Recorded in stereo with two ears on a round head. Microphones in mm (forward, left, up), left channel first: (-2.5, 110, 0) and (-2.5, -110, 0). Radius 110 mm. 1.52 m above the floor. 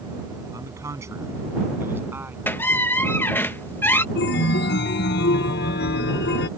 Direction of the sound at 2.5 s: 10° left (ahead or behind).